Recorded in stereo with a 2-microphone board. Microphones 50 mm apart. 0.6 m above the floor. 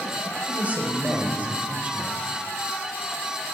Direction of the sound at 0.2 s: 30° right (ahead or behind).